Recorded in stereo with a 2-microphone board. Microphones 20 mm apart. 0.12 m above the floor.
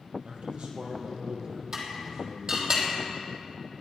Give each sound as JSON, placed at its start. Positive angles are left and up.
{"t": 0.2, "sound": "a man speaking", "side_deg": -65, "distance_m": 3.5}
{"t": 1.7, "sound": "dishes clattering", "side_deg": -30, "distance_m": 3.0}